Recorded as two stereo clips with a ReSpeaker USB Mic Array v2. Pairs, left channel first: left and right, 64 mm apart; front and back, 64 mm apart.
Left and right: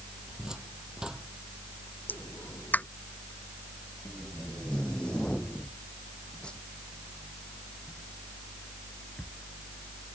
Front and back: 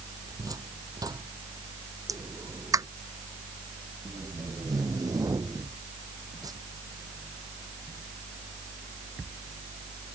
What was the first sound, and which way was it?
A cupboard door, 170° right.